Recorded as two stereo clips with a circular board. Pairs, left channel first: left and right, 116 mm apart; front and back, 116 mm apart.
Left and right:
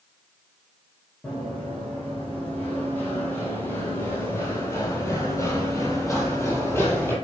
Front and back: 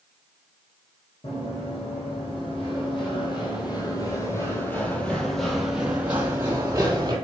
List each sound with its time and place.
1.2 s running footsteps: 15° left, 3.5 m; by 7.2 s 150° left, 2 m